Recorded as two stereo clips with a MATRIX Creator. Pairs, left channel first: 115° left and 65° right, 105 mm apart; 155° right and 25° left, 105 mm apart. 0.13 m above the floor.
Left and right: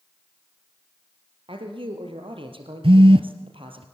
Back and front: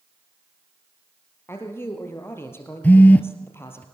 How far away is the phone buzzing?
About 0.8 m.